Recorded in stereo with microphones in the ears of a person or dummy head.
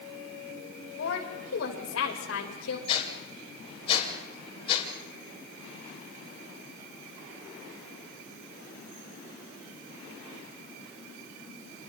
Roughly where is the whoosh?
Left.